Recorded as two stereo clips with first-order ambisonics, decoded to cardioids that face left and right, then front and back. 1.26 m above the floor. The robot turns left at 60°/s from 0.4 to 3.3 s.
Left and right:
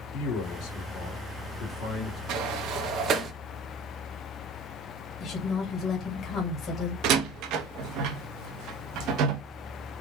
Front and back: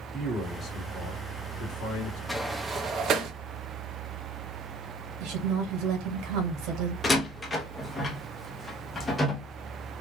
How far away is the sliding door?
About 0.5 m.